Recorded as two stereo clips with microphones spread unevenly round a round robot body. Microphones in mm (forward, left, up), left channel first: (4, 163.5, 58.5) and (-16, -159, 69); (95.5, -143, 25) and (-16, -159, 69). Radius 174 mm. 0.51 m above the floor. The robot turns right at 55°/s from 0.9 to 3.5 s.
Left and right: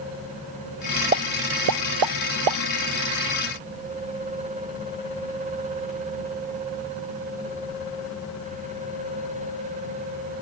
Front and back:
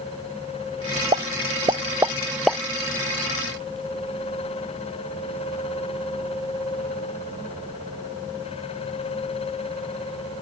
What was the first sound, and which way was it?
A pop, 160° right.